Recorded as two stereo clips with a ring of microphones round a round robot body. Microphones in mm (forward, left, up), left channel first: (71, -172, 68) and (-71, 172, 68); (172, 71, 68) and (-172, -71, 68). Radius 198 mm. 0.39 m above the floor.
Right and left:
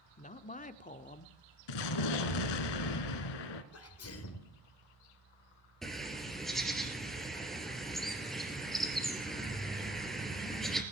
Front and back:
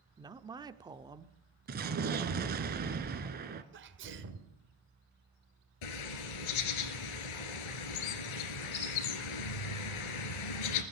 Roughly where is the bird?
Ahead.